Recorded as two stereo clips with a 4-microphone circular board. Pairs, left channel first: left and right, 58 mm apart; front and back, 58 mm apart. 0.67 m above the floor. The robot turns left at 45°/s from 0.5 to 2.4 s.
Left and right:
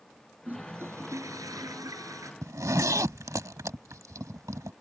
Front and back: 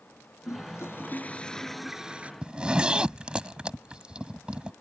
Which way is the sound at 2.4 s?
110° right.